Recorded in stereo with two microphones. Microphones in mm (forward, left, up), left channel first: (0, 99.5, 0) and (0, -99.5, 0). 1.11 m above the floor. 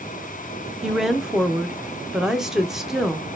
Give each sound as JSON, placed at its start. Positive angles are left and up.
{"t": 0.8, "sound": "a woman speaking", "side_deg": -5, "distance_m": 0.6}